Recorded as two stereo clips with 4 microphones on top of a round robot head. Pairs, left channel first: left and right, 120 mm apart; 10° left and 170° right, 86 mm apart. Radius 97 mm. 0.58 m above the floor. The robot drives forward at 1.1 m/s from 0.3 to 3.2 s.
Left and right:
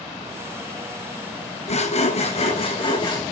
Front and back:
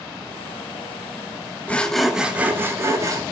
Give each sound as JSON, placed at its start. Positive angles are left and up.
{"t": 1.7, "sound": "sawing", "azimuth_deg": 80, "distance_m": 1.3}